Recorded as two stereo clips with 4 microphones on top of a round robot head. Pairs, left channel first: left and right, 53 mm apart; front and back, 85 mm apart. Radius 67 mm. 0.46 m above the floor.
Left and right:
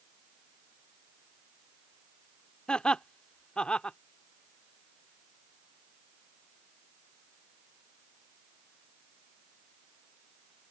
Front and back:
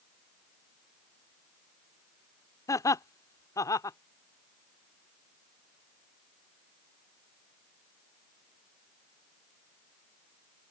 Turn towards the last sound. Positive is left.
turn(degrees=25)